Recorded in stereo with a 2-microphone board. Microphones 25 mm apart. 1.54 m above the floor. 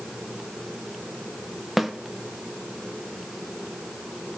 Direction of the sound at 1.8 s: 10° right (ahead or behind).